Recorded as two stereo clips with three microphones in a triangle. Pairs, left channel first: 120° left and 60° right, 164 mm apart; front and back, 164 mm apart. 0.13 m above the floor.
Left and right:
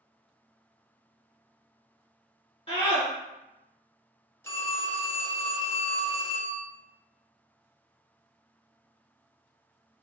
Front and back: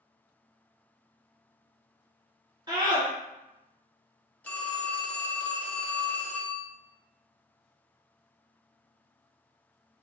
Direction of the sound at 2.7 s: 140° left.